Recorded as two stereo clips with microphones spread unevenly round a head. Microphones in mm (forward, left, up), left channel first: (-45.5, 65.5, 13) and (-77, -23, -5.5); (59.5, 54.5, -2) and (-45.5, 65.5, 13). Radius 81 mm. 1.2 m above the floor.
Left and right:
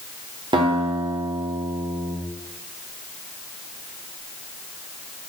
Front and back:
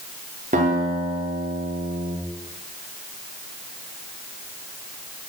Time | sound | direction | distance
0.5 | a guitar | 145° right | 3 m